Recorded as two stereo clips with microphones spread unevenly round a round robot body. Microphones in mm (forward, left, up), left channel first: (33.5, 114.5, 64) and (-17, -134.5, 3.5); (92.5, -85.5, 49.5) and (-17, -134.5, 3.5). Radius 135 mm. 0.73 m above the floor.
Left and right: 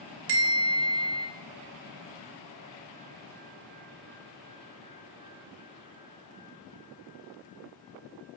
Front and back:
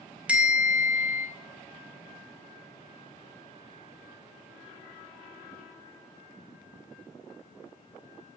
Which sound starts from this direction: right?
A bell, at 0.3 s.